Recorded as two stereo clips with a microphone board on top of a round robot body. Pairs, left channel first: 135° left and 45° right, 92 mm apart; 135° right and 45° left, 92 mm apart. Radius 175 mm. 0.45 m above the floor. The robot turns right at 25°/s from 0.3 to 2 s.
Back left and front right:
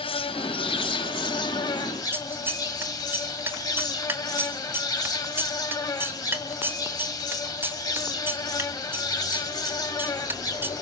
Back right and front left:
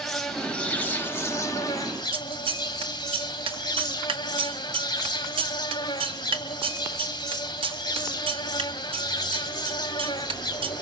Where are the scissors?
20° left, 2.0 m.